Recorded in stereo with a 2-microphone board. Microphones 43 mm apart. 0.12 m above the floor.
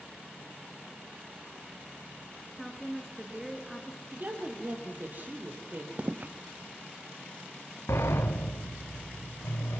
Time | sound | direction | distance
2.5 | a woman speaking | 5° right (ahead or behind) | 1.6 m
4.1 | a woman speaking | 45° right (ahead or behind) | 4 m
6.0 | footsteps | 30° right (ahead or behind) | 0.8 m
7.9 | a sliding door | 70° left (ahead or behind) | 1.9 m